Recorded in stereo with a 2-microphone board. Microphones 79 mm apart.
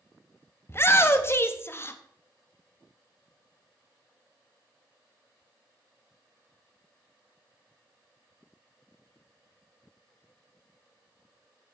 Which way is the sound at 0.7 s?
30° left (ahead or behind).